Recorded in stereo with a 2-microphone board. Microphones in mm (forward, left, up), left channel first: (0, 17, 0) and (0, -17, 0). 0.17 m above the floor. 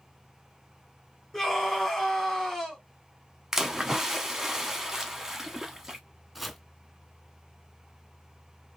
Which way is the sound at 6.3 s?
Centre (ahead or behind).